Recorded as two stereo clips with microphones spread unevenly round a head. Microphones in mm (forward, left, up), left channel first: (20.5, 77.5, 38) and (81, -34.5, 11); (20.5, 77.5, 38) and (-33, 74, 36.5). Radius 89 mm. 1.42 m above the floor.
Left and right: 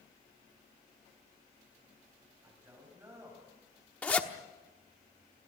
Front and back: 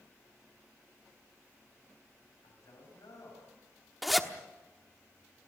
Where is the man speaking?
10° left, 9 m; by 3.9 s 5° left, 8 m.